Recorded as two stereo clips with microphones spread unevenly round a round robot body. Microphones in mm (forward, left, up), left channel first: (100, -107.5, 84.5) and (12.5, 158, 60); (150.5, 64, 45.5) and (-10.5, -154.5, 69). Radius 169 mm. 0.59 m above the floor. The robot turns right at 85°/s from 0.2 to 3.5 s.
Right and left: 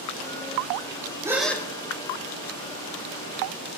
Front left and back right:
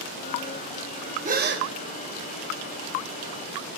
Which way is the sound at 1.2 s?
175° left.